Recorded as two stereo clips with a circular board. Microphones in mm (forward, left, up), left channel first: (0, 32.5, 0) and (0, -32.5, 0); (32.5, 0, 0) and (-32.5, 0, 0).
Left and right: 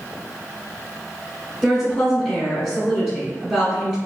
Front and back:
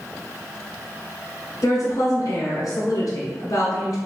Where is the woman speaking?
5° right, 1.5 m.